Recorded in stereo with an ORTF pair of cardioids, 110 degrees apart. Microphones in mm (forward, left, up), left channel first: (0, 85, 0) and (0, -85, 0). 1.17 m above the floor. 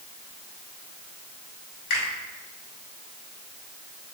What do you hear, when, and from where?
1.9 s a finger snap: 70° left, 1.8 m